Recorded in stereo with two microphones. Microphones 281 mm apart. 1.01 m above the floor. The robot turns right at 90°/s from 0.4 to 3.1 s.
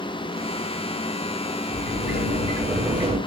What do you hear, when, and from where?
1.7 s a sliding door: 85° left, 0.9 m; by 3.2 s 145° right, 0.9 m